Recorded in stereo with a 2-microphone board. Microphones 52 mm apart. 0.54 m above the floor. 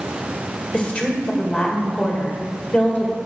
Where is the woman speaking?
30° left (ahead or behind), 2.5 m.